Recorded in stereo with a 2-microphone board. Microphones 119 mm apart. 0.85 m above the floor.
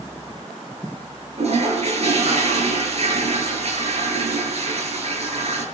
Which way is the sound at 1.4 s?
60° right (ahead or behind).